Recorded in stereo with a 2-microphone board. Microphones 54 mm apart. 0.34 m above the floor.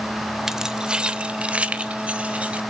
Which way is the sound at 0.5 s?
10° right (ahead or behind).